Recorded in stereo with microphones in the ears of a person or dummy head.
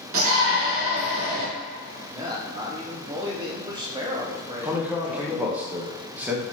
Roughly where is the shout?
Right.